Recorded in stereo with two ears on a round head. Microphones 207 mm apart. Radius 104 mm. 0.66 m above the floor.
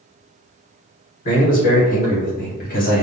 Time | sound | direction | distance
1.2 | a man speaking | 35° left (ahead or behind) | 1.9 m